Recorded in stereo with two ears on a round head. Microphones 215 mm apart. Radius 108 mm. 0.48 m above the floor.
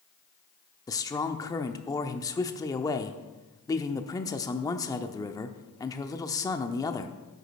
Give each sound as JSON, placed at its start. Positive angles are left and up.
{"t": 0.9, "sound": "a man speaking", "side_deg": 15, "distance_m": 0.8}